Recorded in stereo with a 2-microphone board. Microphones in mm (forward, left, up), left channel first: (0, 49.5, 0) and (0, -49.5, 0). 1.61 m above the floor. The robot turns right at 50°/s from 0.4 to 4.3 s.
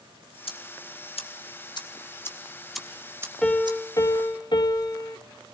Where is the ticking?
65° left (ahead or behind), 1.9 m; by 3.8 s 50° right (ahead or behind), 1.9 m.